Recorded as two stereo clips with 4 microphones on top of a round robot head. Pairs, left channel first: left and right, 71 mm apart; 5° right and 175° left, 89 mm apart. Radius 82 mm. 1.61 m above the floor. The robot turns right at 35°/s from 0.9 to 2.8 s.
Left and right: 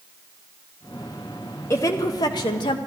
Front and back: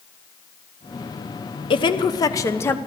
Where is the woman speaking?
25° left, 0.9 m; by 2.8 s 65° left, 0.9 m.